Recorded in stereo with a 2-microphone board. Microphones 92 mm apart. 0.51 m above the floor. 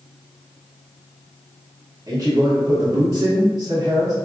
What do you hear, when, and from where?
2.1 s a man speaking: 35° right (ahead or behind), 0.8 m